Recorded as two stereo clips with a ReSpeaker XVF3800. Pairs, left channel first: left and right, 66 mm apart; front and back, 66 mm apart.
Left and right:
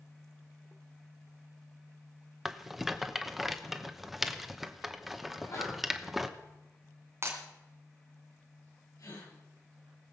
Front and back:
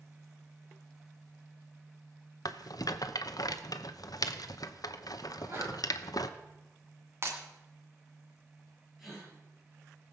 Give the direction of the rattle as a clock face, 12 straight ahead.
12 o'clock.